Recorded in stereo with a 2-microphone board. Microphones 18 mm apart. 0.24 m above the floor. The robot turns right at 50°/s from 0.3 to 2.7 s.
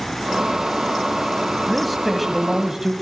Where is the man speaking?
175° left, 1.4 m; by 2.9 s 135° right, 1.4 m.